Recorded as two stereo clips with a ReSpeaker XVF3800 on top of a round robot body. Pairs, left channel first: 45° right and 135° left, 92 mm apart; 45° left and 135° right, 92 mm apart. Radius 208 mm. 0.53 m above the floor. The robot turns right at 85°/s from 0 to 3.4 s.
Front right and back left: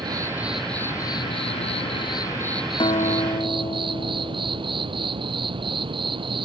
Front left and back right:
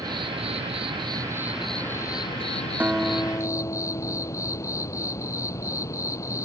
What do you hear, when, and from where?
0.0 s an insect: 175° left; by 6.5 s 105° left
2.8 s a guitar: 65° right; by 5.1 s 15° right